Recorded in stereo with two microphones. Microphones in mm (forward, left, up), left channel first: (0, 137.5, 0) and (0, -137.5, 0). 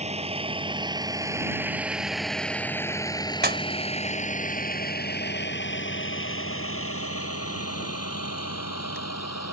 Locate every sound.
0.0 s a vehicle: 25° right (ahead or behind); by 9.5 s 70° left (ahead or behind)
3.4 s a pop: 35° right (ahead or behind)